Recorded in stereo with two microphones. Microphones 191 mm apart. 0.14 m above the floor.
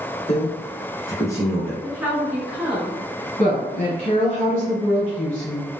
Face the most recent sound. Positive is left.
turn(degrees=35)  # may be behind; listen again after turning